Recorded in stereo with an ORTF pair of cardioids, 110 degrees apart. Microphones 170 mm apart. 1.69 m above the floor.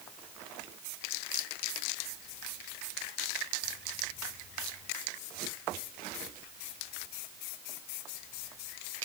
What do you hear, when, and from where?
Only background noise.